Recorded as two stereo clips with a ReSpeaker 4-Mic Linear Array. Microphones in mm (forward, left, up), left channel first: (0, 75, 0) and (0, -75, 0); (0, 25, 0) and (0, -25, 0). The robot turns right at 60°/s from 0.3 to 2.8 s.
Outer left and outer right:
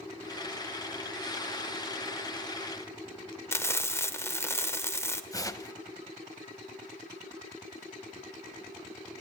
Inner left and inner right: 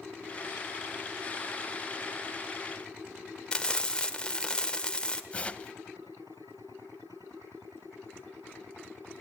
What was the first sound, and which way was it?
Frying, 20° left (ahead or behind).